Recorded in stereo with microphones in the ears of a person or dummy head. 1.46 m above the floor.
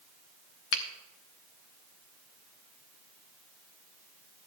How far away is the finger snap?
About 1.0 m.